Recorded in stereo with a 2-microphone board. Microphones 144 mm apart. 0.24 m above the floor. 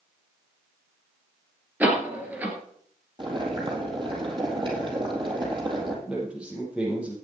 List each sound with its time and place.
1.8 s a door slam: 10° right (ahead or behind), 3 m
3.2 s boiling: 35° right (ahead or behind), 3.5 m
6.0 s a man speaking: 10° right (ahead or behind), 7 m